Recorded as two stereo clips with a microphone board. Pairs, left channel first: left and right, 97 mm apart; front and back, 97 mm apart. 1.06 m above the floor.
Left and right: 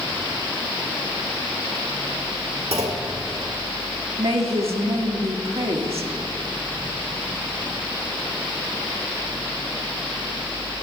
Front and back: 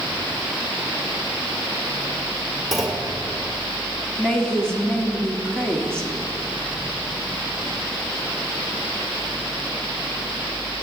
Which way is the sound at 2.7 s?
90° right.